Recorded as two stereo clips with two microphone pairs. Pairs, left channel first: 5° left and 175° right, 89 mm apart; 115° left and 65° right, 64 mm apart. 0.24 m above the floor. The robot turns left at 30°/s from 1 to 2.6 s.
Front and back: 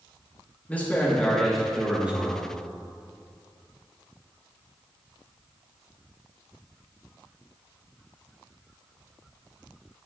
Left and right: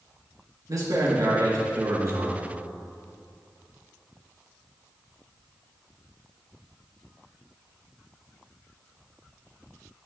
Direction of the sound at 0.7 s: 70° right.